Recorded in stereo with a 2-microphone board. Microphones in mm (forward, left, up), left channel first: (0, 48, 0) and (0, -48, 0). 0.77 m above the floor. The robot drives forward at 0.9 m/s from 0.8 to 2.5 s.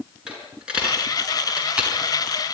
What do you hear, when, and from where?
0.3 s a dropped coin: 10° right (ahead or behind), 5.5 m; by 1.9 s 15° right (ahead or behind), 4.5 m